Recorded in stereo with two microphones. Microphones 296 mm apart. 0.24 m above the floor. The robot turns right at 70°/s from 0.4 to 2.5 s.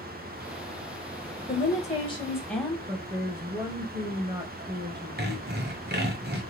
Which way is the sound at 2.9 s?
15° right (ahead or behind).